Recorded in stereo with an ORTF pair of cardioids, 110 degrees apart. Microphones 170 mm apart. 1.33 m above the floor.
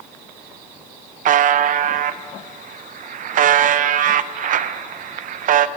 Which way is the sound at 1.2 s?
55° right.